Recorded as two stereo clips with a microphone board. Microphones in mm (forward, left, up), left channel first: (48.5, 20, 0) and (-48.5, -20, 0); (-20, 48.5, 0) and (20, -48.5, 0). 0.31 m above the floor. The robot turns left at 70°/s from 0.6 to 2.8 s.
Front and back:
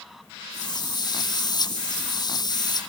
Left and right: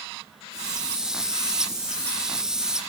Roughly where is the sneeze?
No sneeze in this recording.